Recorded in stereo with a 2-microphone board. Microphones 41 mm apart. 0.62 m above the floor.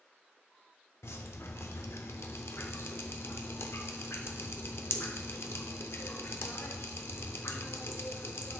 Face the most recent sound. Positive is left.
turn(degrees=80)